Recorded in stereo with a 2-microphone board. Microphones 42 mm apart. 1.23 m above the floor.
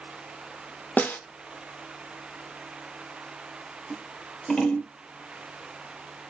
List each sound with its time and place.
1.0 s a snare drum: 50° left (ahead or behind), 0.8 m
3.9 s scissors: 25° left (ahead or behind), 1.2 m